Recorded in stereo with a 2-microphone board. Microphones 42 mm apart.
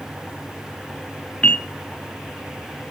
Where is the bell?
30° left (ahead or behind), 1.1 m.